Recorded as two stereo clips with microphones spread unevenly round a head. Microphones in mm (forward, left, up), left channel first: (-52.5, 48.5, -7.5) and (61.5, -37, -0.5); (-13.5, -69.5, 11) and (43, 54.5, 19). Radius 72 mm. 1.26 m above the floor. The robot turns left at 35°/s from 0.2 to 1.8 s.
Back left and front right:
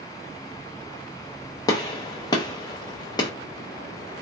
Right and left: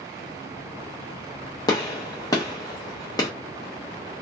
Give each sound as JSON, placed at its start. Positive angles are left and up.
{"t": 1.7, "sound": "a gunshot", "azimuth_deg": -165, "distance_m": 0.6}